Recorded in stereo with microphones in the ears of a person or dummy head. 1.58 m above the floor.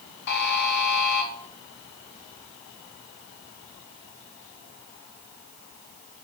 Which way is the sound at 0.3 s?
60° left (ahead or behind).